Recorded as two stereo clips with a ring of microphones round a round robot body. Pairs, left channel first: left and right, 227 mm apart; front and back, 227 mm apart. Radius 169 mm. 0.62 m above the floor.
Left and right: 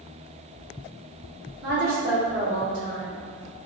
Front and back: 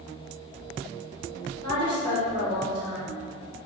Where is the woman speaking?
115° right, 1.4 m.